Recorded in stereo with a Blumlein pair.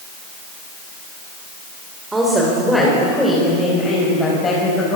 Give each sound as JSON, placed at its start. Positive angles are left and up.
{"t": 2.1, "sound": "a woman speaking", "azimuth_deg": -10, "distance_m": 4.0}